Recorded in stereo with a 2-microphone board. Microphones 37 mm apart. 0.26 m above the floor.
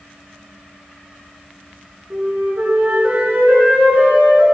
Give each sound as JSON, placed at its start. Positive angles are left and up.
{"t": 2.1, "sound": "a flute", "side_deg": -50, "distance_m": 3.5}